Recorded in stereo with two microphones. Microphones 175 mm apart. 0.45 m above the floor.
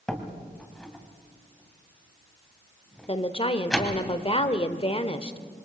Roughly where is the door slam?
Centre.